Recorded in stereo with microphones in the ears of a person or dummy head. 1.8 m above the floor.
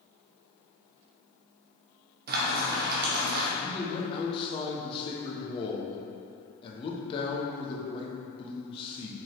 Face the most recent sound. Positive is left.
turn(degrees=35)  # may be behind; listen again after turning